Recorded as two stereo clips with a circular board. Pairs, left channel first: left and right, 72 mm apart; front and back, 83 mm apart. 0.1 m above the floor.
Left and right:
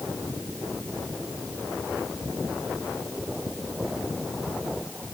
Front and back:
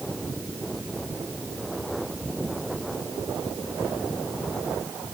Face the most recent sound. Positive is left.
No sound to turn to.